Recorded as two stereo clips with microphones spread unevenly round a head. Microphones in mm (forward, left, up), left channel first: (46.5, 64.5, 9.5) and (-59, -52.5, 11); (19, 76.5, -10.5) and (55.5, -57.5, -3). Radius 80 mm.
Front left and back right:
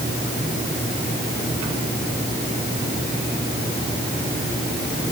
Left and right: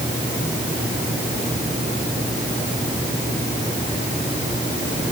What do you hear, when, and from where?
Only background noise.